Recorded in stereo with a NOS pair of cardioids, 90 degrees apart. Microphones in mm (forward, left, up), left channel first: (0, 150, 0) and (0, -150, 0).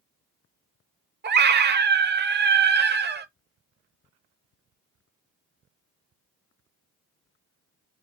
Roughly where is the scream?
Ahead right.